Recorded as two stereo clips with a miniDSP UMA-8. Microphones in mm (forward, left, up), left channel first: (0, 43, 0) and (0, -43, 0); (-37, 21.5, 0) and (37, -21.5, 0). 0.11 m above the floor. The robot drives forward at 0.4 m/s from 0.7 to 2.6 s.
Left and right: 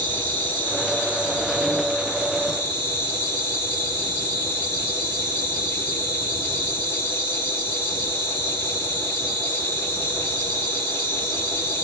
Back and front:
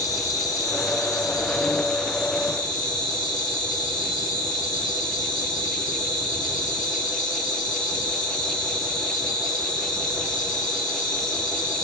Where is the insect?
150° left, 3 m; by 11.8 s 155° left, 3.5 m.